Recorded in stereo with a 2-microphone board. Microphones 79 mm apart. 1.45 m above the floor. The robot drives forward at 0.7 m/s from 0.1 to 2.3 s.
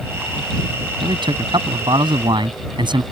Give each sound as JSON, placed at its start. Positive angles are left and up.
{"t": 1.0, "sound": "a man speaking", "side_deg": -80}